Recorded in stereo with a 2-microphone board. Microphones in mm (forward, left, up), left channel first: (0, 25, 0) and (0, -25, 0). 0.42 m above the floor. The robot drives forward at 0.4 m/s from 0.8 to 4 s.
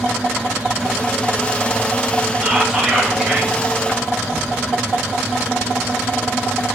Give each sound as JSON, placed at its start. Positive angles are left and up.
{"t": 2.4, "sound": "whispering", "side_deg": -20, "distance_m": 1.0}